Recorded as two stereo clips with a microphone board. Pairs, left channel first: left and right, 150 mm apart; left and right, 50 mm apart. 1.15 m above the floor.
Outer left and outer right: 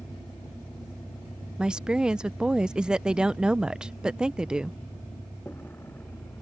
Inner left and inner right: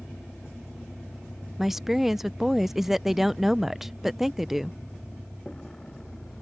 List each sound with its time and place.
0.0 s a vehicle: 10° left (ahead or behind); by 6.4 s 15° left (ahead or behind)
1.6 s a woman speaking: 5° right (ahead or behind)